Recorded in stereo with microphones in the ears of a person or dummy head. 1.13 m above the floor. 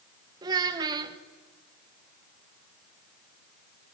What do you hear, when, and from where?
0.4 s a child speaking: 25° right (ahead or behind), 0.9 m